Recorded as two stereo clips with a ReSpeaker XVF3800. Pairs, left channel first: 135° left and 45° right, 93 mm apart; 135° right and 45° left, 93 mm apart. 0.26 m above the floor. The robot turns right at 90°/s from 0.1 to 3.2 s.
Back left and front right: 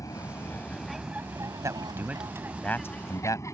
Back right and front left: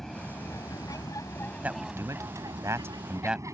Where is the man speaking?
20° right; by 3.4 s 120° left.